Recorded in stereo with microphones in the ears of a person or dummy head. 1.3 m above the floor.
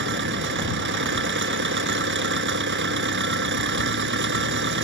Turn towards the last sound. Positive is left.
turn(degrees=-55)  # may be behind; listen again after turning